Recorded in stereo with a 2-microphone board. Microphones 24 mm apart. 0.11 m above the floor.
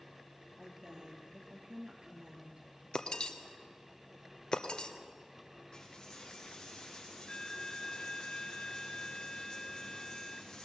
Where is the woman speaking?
40° right (ahead or behind), 3.5 m.